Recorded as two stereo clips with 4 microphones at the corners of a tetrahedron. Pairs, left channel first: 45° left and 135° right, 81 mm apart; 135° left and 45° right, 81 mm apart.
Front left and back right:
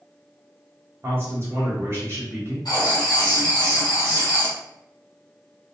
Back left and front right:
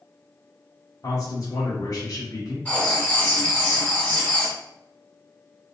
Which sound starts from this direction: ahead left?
Writing, at 2.6 s.